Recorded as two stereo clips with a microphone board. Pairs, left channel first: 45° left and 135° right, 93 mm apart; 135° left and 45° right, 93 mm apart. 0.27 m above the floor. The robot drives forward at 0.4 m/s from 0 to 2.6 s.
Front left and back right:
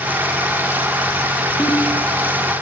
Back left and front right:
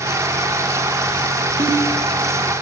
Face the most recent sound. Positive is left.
turn(degrees=-40)